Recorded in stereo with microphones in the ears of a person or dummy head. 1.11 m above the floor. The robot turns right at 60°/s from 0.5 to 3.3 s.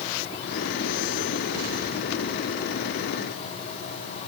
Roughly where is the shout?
No shout in this recording.